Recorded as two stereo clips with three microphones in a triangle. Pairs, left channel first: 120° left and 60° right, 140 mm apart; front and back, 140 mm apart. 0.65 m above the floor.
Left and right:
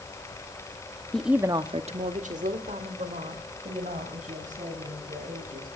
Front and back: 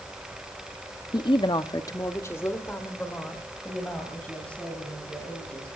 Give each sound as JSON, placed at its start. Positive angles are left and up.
{"t": 1.1, "sound": "a woman speaking", "azimuth_deg": 40, "distance_m": 0.8}